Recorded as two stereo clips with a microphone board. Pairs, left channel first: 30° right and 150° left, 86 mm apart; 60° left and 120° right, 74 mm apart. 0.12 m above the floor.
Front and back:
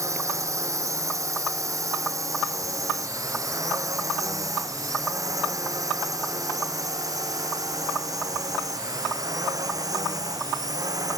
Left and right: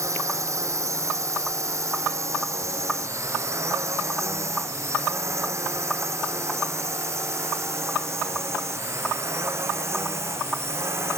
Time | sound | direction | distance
0.0 | a drone | 160° right | ?